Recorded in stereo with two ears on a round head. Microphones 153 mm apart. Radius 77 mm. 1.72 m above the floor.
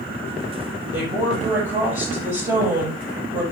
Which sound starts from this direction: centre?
A woman speaking, at 0.9 s.